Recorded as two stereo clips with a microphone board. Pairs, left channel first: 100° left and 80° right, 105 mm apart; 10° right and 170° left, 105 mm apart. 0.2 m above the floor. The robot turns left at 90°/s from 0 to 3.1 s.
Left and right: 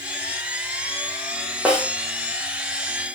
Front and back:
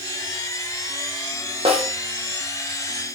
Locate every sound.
1.6 s a snare drum: 160° right, 6 m; by 1.9 s straight behind, 6 m